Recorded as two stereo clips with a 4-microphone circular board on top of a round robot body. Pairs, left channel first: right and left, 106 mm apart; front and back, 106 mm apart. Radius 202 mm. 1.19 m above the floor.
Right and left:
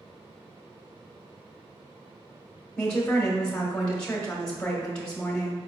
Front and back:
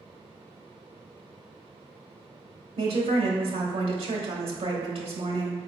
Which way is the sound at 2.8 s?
170° right.